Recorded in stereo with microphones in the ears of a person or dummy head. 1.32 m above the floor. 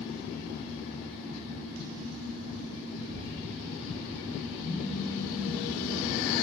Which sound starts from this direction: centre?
A phone buzzing, at 4.6 s.